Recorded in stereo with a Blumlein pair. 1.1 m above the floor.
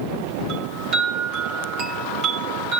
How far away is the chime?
About 4.5 m.